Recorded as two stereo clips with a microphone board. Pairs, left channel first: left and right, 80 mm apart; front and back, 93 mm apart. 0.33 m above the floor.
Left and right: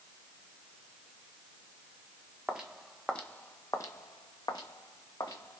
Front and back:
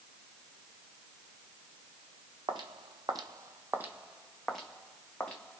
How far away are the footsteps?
About 0.7 m.